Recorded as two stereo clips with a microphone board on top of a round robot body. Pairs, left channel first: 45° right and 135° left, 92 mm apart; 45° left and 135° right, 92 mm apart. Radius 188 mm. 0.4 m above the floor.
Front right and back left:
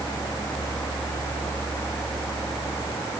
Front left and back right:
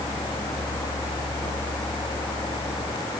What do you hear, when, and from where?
Only background noise.